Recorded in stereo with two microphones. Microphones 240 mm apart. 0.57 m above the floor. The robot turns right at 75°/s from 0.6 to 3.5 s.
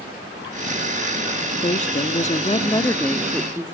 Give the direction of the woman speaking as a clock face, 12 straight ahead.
10 o'clock.